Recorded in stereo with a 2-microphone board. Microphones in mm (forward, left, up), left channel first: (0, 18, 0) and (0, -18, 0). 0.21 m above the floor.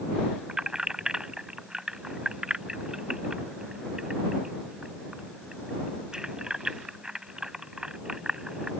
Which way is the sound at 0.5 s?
20° right (ahead or behind).